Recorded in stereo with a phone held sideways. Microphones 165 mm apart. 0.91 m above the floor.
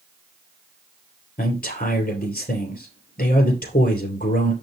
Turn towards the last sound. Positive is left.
turn(degrees=70)  # may be behind; listen again after turning